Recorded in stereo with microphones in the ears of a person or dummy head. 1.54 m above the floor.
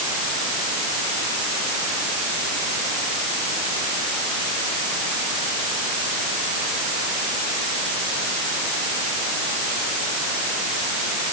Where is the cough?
I don't hear a cough.